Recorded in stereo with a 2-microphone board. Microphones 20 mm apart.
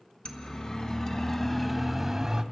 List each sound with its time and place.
0.2 s a siren: 45° left (ahead or behind), 2.5 m; by 2.4 s 25° right (ahead or behind), 1.5 m